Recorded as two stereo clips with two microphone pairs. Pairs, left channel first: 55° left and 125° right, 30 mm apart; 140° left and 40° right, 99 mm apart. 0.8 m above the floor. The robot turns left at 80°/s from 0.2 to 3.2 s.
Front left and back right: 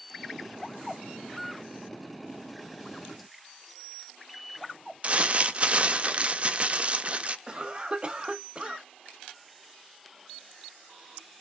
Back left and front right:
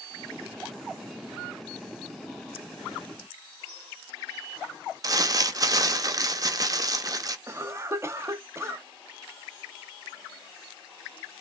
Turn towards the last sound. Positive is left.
turn(degrees=-95)